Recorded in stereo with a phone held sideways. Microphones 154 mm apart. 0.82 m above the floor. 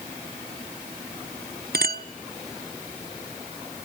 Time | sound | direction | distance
1.7 | a clink | 85° right | 0.9 m